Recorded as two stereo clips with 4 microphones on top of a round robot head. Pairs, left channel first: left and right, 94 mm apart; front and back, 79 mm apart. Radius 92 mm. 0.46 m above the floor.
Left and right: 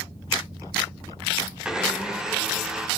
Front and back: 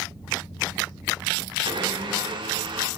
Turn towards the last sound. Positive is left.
turn(degrees=-175)